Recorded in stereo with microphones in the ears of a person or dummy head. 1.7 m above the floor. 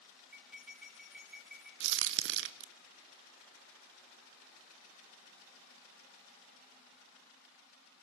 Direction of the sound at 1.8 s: 65° right (ahead or behind).